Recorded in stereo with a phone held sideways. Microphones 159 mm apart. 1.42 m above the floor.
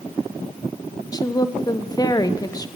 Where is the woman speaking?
25° left (ahead or behind), 0.7 m.